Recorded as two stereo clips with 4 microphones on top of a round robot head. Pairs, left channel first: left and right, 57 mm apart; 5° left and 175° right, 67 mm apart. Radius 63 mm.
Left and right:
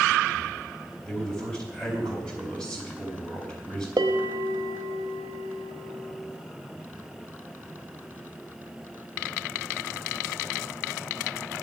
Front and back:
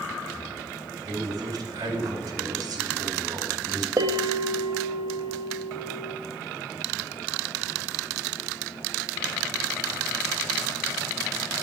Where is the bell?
125° right, 0.9 m.